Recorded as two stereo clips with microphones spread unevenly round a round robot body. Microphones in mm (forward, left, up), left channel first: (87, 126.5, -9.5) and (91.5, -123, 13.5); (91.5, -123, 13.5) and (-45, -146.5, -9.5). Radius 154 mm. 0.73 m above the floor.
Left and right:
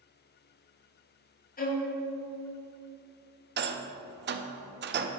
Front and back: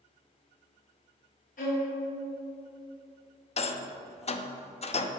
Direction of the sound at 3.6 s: 40° right.